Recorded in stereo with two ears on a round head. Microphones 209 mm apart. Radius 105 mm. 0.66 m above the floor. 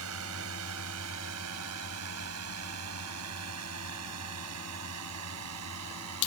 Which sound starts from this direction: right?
A drone, at 0.0 s.